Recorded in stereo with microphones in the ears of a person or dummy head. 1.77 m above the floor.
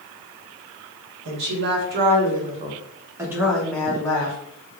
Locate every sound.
1.2 s a woman speaking: 65° right (ahead or behind), 1.2 m; by 4.4 s 25° left (ahead or behind), 1.0 m